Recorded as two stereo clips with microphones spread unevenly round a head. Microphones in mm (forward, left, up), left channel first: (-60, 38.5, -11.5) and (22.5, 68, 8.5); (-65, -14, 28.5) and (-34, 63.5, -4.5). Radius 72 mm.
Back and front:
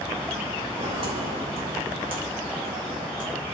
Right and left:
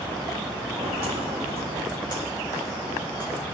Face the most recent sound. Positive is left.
turn(degrees=-20)